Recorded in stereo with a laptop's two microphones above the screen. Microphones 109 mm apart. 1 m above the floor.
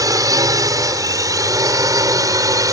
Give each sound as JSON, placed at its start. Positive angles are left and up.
{"t": 0.0, "sound": "a drone", "side_deg": -35}